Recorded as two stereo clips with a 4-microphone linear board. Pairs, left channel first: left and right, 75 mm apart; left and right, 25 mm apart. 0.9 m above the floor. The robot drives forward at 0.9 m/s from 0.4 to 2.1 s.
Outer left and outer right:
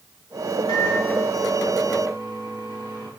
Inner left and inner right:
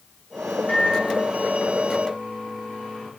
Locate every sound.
0.7 s a microwave: 80° left, 9 m; by 3.1 s 75° left (ahead or behind), 9.5 m